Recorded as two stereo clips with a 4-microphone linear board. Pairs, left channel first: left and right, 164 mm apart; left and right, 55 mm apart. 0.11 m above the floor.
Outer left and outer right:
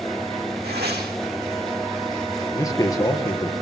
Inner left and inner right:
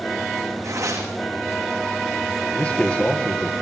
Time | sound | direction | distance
0.6 | tearing paper | 80° right | 5.5 m
2.5 | a man speaking | 20° left (ahead or behind) | 3 m